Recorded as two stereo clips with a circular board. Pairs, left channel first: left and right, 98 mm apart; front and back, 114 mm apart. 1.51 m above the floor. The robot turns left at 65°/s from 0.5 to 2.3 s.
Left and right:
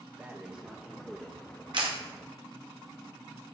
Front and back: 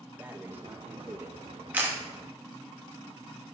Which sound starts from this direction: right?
A camera shutter, at 1.7 s.